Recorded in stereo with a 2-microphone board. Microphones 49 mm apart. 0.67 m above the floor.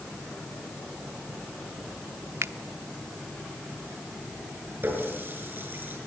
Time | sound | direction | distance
2.4 | a finger snap | 70° right (ahead or behind) | 0.8 m
4.8 | a running tap | 45° right (ahead or behind) | 6.5 m